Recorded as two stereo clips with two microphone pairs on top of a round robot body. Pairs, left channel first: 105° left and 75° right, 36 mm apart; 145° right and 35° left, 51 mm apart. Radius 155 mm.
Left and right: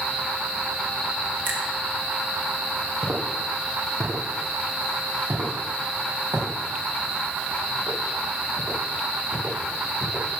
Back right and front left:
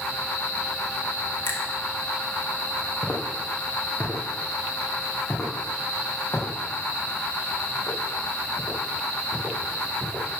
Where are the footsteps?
80° right, 3 m; by 10.2 s 85° right, 8.5 m.